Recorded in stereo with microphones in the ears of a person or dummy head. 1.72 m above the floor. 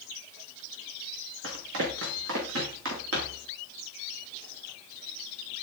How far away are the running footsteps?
About 4.5 m.